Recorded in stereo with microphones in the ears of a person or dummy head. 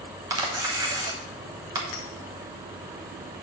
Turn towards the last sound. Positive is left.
turn(degrees=35)  # may be behind; listen again after turning